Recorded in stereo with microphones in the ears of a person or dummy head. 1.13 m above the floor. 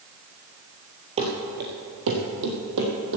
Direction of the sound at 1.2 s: 25° right (ahead or behind).